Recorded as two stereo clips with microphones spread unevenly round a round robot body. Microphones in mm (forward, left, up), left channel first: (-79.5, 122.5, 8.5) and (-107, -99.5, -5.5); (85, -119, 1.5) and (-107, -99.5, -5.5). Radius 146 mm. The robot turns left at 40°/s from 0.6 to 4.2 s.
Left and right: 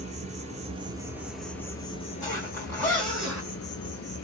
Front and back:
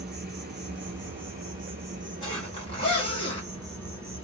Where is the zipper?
25° left, 1.1 m; by 3.5 s 25° right, 1.1 m.